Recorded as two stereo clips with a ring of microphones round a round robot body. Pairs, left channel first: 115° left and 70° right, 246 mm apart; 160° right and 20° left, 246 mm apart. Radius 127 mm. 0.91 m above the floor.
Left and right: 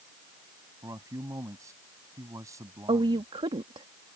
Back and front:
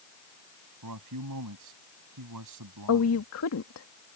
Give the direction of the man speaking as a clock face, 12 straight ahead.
12 o'clock.